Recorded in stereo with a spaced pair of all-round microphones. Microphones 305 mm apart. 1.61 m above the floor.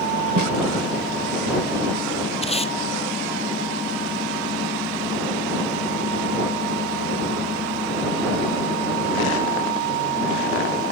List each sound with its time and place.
0.4 s a snare drum: 80° right
2.4 s tape being pulled: 20° left (ahead or behind)